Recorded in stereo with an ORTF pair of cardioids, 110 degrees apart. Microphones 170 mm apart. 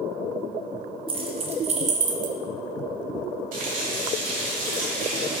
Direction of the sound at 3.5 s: 55° right.